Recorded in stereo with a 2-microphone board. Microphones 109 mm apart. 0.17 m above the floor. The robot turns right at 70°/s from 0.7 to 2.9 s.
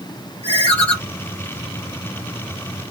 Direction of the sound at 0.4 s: 45° left (ahead or behind).